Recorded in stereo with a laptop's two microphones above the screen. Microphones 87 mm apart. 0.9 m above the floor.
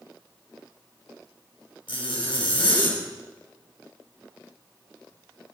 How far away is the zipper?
About 4.5 m.